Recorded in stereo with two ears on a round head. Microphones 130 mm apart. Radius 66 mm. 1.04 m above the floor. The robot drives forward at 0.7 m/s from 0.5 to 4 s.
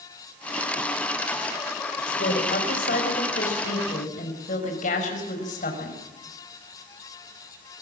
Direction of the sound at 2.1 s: 75° left (ahead or behind).